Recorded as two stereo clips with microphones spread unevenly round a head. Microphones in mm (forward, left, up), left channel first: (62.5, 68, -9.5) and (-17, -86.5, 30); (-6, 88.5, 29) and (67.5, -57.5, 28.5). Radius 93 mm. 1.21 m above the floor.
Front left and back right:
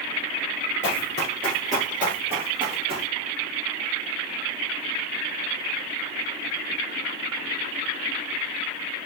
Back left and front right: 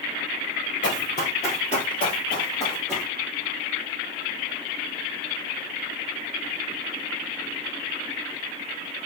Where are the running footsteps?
120° left, 1.5 m; by 3.1 s 165° right, 2.5 m.